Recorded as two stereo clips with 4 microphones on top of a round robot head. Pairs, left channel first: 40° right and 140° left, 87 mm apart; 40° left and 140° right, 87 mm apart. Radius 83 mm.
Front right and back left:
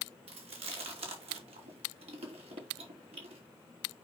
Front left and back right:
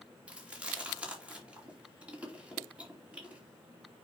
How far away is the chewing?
About 2.5 m.